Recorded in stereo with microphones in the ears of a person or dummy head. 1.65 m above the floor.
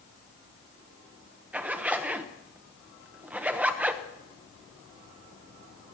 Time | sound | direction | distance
1.5 | a zipper | 5° right (ahead or behind) | 1.0 m